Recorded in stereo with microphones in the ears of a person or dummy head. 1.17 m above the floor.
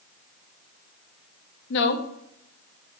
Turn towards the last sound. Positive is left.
turn(degrees=60)  # may be behind; listen again after turning